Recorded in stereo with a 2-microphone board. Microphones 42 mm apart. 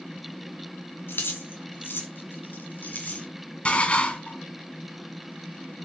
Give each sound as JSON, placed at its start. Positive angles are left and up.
{"t": 1.1, "sound": "keys jangling", "side_deg": 70, "distance_m": 2.5}
{"t": 3.6, "sound": "dishes clattering", "side_deg": 30, "distance_m": 1.9}